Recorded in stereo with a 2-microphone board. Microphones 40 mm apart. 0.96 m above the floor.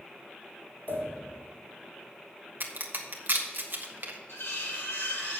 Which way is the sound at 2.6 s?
55° right (ahead or behind).